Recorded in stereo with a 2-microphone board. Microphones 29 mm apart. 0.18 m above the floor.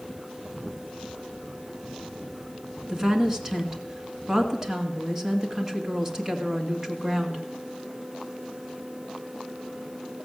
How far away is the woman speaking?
About 1.8 m.